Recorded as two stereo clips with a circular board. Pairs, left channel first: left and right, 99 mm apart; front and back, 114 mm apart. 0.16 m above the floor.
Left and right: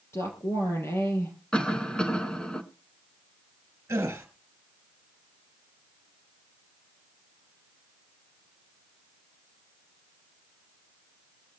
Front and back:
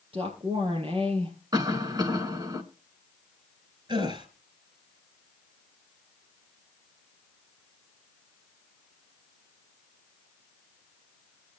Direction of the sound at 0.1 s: 150° left.